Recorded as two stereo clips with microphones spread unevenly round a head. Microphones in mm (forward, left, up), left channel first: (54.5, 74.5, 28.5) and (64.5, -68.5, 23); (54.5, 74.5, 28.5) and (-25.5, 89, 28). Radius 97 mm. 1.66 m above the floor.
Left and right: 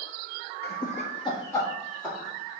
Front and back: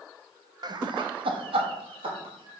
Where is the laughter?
135° left, 0.9 m; by 2.6 s 170° right, 1.9 m.